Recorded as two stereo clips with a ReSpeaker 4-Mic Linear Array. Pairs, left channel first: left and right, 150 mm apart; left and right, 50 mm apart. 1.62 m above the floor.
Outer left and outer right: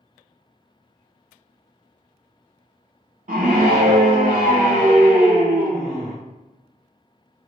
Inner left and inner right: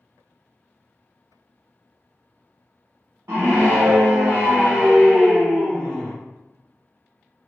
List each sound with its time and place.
3.3 s a scream: 65° right (ahead or behind), 0.7 m